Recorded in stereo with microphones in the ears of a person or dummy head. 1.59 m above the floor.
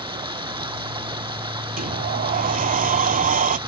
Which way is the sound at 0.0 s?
20° right (ahead or behind).